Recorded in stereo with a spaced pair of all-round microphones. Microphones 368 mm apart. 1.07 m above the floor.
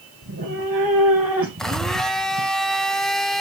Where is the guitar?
I don't hear a guitar.